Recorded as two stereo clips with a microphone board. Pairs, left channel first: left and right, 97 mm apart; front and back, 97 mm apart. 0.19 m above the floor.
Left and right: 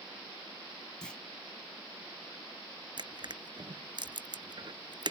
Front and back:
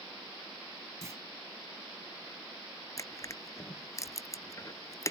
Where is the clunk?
165° left.